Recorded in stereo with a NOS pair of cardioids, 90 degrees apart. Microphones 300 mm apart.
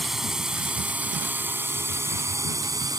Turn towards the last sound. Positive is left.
turn(degrees=-10)